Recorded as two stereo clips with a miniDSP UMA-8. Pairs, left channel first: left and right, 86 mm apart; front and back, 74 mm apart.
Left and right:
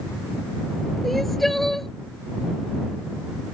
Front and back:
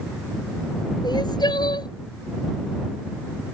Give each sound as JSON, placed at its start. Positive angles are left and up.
{"t": 1.0, "sound": "crying", "azimuth_deg": 0}